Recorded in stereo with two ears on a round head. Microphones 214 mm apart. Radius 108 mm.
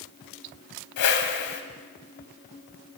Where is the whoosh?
70° left (ahead or behind), 1.5 m.